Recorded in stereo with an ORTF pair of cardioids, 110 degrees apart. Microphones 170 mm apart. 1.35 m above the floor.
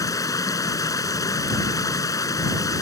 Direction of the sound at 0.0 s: 20° left.